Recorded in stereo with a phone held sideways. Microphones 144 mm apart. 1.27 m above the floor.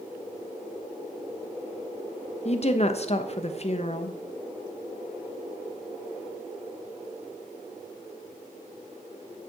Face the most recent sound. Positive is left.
turn(degrees=45)  # may be behind; listen again after turning